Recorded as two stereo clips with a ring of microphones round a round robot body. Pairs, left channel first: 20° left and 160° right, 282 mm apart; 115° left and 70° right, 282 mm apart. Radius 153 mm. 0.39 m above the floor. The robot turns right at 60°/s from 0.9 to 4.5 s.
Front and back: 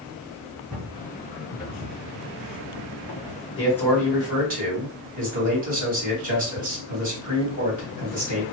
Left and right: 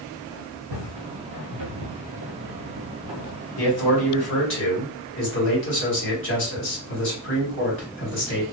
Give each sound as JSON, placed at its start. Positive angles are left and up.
{"t": 0.7, "sound": "footsteps", "azimuth_deg": -70, "distance_m": 1.5}
{"t": 3.6, "sound": "a man speaking", "azimuth_deg": 90, "distance_m": 2.0}